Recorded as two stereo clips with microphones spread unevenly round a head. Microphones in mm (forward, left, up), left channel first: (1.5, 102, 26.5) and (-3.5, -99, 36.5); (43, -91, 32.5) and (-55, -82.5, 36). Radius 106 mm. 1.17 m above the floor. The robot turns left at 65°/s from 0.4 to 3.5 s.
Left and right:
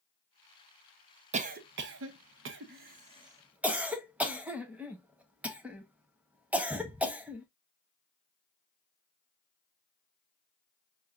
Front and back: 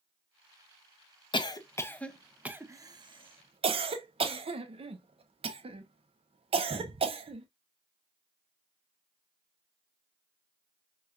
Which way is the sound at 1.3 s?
35° right.